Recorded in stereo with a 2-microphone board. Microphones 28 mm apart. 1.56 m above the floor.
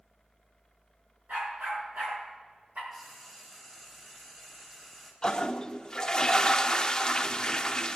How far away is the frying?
About 3 m.